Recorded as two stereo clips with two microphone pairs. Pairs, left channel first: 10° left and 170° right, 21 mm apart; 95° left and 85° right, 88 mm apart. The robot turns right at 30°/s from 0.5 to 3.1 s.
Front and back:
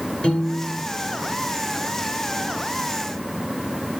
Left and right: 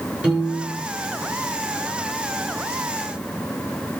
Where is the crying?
No crying in this recording.